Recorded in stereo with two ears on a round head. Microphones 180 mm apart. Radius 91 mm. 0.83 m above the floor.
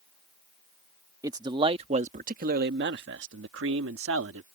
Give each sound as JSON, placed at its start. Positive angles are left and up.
{"t": 1.2, "sound": "a man speaking", "side_deg": -15}